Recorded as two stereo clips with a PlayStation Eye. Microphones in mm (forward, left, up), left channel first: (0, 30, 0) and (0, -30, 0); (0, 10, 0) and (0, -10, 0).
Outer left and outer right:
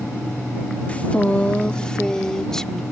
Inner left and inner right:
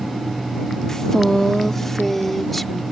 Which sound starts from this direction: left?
A woman speaking, at 0.9 s.